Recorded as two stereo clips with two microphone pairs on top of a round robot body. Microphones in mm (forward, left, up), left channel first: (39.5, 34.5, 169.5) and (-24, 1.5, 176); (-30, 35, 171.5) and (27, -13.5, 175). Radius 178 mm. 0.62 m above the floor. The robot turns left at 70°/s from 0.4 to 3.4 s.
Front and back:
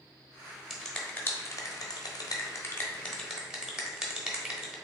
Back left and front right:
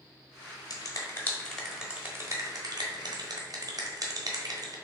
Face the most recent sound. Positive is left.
turn(degrees=-70)